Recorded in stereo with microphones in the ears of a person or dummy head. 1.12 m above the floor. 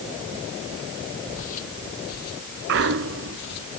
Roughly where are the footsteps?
Left.